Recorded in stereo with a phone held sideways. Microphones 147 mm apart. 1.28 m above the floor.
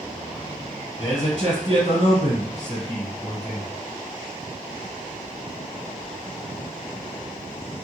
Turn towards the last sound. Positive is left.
turn(degrees=45)  # may be behind; listen again after turning